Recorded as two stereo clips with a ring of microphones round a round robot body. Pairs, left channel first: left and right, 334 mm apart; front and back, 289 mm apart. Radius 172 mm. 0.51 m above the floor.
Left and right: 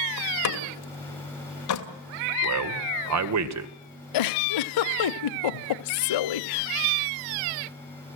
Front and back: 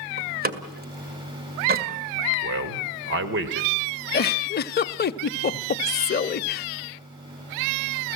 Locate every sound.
0.2 s a door slam: 125° left, 2 m
2.4 s a man speaking: 125° right, 1.9 m
4.1 s a giggle: 60° left, 0.8 m